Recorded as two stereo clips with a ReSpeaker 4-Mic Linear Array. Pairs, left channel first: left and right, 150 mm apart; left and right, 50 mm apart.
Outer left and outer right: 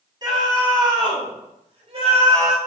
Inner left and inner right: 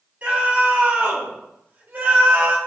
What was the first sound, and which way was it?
A scream, 30° right (ahead or behind).